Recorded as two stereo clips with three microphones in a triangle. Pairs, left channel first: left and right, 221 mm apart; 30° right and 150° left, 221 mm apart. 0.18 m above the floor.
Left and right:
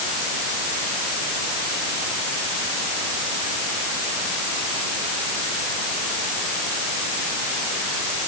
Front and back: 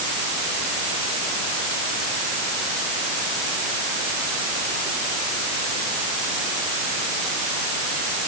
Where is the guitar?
No guitar in this recording.